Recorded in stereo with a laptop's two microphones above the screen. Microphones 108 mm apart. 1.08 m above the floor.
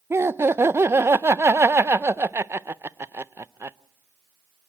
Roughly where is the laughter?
Right.